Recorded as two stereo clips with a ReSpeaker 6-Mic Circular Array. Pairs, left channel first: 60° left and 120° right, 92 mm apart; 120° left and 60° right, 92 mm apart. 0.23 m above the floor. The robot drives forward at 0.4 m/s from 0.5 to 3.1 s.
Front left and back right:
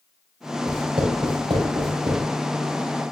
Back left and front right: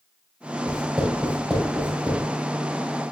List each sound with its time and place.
0.7 s writing: 135° right, 3.5 m; by 2.2 s 145° right, 4 m